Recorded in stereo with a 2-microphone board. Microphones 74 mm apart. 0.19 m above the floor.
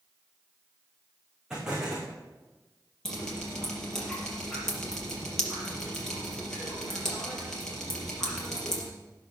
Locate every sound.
1.5 s an explosion: 10° right (ahead or behind), 5 m
3.0 s dripping: 10° left (ahead or behind), 4.5 m